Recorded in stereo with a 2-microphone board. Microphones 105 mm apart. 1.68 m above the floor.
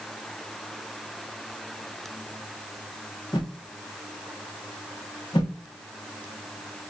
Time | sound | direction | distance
3.3 | a whoosh | 40° left (ahead or behind) | 0.8 m